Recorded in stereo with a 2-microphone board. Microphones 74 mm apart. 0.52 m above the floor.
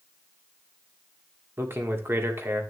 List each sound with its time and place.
1.6 s a man speaking: 35° right (ahead or behind), 1.4 m